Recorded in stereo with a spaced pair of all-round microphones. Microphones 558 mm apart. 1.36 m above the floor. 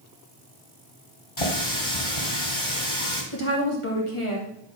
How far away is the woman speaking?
About 2.5 m.